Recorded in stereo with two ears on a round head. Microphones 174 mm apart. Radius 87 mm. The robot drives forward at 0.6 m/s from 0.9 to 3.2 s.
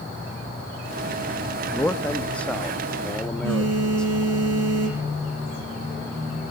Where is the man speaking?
10° left (ahead or behind), 1.0 m; by 4.0 s 5° left (ahead or behind), 1.7 m.